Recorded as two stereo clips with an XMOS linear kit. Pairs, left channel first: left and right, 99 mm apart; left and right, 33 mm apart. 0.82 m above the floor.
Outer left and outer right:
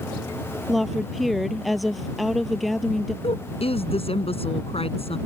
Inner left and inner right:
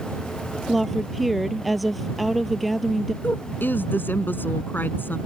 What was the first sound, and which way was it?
A woman speaking, centre (ahead or behind).